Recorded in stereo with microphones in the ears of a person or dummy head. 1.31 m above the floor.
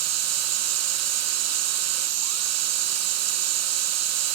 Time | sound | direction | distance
0.0 | a machine running | 80° right | 1.2 m